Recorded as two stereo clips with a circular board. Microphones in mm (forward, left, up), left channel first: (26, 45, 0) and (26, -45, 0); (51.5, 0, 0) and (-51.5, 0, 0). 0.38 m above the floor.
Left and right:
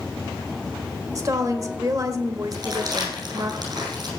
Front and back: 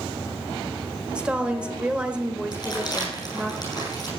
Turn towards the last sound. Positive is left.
turn(degrees=-50)